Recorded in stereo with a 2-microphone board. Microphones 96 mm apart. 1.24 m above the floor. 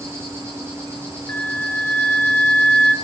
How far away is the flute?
About 0.8 m.